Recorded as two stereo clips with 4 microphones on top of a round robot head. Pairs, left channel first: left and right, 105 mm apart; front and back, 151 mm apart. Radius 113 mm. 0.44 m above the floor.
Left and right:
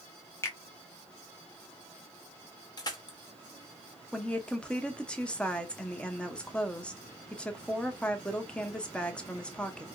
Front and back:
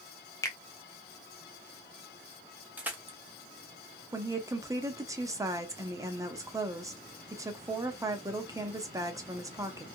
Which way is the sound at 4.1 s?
155° left.